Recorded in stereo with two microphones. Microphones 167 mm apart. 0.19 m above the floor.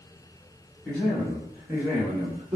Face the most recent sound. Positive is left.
turn(degrees=-30)  # may be behind; listen again after turning